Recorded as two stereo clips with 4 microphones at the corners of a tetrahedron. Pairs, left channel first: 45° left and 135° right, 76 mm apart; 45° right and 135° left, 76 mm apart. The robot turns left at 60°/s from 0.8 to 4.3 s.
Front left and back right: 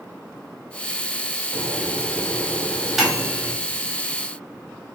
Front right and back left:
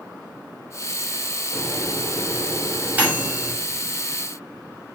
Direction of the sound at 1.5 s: 130° right.